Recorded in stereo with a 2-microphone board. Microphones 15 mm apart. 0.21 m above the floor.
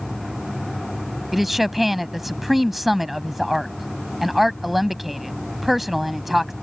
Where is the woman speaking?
10° right (ahead or behind).